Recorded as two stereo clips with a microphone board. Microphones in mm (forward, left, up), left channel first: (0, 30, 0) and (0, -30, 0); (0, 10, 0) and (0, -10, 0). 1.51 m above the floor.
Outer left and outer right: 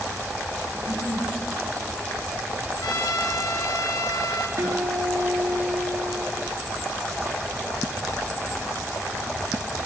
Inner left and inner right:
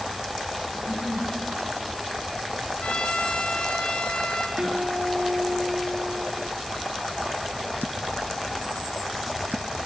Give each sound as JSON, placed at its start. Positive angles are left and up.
{"t": 0.7, "sound": "a giggle", "side_deg": -75, "distance_m": 5.0}
{"t": 2.8, "sound": "a trumpet", "side_deg": 80, "distance_m": 2.5}
{"t": 4.6, "sound": "a guitar", "side_deg": -70, "distance_m": 3.5}